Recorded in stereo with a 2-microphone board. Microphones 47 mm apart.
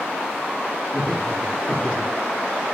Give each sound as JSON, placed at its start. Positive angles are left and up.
{"t": 0.9, "sound": "laughter", "side_deg": -30, "distance_m": 3.0}